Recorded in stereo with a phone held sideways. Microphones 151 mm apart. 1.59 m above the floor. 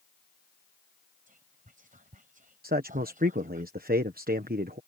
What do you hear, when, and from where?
1.3 s whispering: 60° right (ahead or behind)
2.6 s a man speaking: 85° right